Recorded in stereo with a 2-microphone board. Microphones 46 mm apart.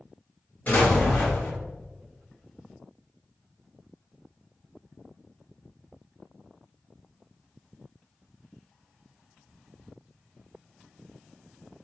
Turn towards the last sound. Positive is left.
turn(degrees=35)  # may be behind; listen again after turning